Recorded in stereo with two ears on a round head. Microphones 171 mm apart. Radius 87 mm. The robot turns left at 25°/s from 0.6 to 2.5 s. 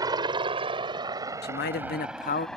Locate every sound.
0.0 s a helicopter: 20° right (ahead or behind); by 2.6 s 5° left (ahead or behind)
1.4 s a man speaking: 55° left (ahead or behind); by 2.5 s 40° left (ahead or behind)